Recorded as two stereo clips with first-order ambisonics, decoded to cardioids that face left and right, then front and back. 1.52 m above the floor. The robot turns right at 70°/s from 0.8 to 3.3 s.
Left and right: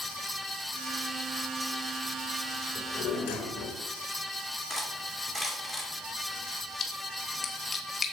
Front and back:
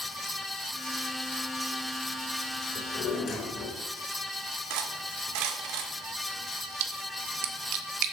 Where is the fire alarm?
I don't hear a fire alarm.